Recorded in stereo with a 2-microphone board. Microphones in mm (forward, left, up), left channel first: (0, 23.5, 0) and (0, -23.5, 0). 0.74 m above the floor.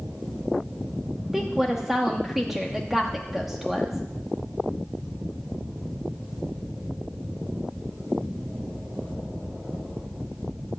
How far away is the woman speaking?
About 0.9 m.